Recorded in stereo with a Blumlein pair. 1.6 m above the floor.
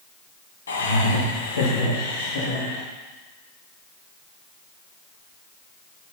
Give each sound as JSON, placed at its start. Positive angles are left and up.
{"t": 0.7, "sound": "laughter", "azimuth_deg": 70, "distance_m": 2.0}